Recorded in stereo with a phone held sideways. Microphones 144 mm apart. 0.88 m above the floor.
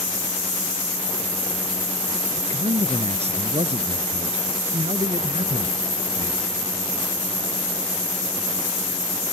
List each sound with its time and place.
2.3 s a man speaking: 50° right (ahead or behind)